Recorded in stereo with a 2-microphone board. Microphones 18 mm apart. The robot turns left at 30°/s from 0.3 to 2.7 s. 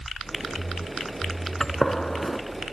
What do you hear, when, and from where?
1.6 s a gunshot: 35° left (ahead or behind), 0.7 m